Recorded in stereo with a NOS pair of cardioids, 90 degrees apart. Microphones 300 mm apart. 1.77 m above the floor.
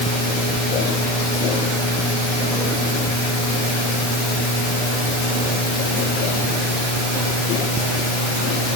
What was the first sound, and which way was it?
Only background noise.